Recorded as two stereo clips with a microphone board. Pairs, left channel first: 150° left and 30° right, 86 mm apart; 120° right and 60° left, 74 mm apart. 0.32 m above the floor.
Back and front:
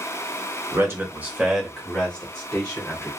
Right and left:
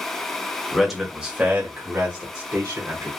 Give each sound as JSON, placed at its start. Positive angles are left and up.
{"t": 0.7, "sound": "a man speaking", "azimuth_deg": -40, "distance_m": 1.1}